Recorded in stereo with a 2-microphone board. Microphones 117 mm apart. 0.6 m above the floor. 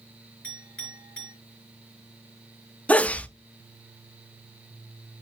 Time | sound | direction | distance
0.4 | a clink | 10° left (ahead or behind) | 7.5 m
2.9 | a sneeze | 10° left (ahead or behind) | 0.6 m